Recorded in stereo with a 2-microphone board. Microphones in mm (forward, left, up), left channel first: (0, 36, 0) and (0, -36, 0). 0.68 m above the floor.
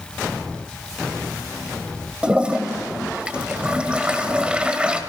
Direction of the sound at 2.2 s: 15° right (ahead or behind).